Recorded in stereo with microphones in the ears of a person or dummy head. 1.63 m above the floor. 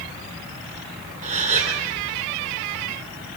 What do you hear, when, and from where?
1.2 s a gasp: 40° right (ahead or behind), 3 m